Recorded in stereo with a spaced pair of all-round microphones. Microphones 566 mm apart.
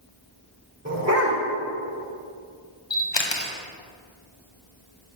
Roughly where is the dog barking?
Right.